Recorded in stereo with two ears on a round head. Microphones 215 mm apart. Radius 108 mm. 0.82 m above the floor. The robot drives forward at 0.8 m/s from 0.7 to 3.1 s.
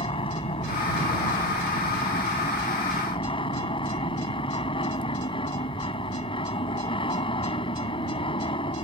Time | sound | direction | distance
0.0 | an aircraft | 20° left (ahead or behind) | ?